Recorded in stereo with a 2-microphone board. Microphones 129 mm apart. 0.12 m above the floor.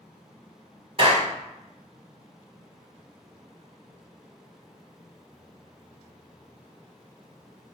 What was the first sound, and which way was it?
A clap, 45° right (ahead or behind).